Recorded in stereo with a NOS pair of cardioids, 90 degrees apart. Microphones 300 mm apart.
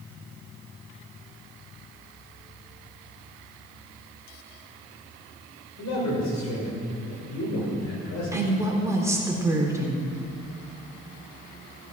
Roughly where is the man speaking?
Ahead left.